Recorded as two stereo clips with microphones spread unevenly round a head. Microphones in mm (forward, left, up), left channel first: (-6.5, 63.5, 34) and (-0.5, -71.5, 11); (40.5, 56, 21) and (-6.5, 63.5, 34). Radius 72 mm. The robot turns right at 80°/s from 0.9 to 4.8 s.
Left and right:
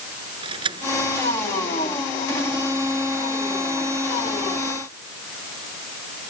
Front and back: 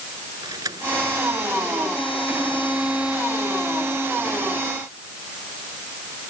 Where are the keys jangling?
145° right; by 2.1 s 50° right.